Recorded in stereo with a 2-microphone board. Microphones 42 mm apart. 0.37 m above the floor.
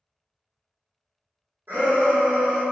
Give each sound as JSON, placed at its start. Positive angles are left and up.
{"t": 1.7, "sound": "a shout", "side_deg": -60, "distance_m": 1.7}